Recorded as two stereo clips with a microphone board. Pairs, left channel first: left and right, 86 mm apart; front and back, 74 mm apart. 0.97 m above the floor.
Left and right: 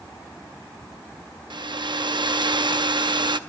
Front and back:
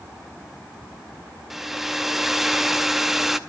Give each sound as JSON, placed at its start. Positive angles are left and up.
{"t": 1.5, "sound": "a hair dryer", "azimuth_deg": -95, "distance_m": 0.5}